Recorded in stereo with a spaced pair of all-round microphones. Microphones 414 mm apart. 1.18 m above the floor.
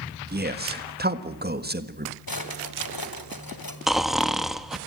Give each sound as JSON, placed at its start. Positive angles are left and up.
{"t": 0.3, "sound": "a man speaking", "side_deg": -25, "distance_m": 1.5}
{"t": 2.3, "sound": "a drawer", "side_deg": 55, "distance_m": 2.5}
{"t": 3.9, "sound": "snoring", "side_deg": 0, "distance_m": 1.1}